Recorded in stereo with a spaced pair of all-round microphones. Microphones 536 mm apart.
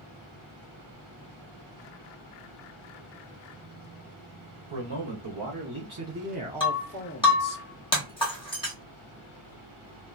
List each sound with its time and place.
4.7 s a man speaking: 60° right (ahead or behind), 1.2 m; by 7.6 s 45° left (ahead or behind), 0.7 m
6.6 s breaking glass: 10° left (ahead or behind), 1.3 m